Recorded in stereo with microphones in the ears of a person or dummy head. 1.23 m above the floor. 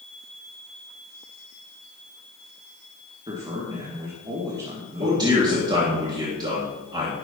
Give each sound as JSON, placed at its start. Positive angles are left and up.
{"t": 3.3, "sound": "a man speaking", "side_deg": -30, "distance_m": 1.8}
{"t": 5.0, "sound": "a man speaking", "side_deg": -25, "distance_m": 1.4}